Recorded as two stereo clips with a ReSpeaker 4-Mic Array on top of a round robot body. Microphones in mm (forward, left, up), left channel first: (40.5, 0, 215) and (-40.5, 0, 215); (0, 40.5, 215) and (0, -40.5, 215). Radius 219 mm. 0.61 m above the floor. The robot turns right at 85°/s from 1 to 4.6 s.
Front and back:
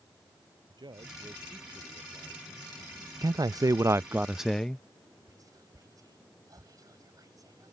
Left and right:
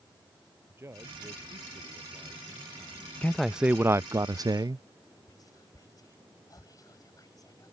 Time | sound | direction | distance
0.7 | a man speaking | 150° right | ?
3.2 | a man speaking | 160° left | ?
5.3 | whispering | 135° left | ?